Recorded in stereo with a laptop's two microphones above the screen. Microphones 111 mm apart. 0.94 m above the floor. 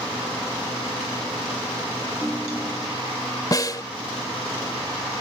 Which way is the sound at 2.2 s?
5° right (ahead or behind).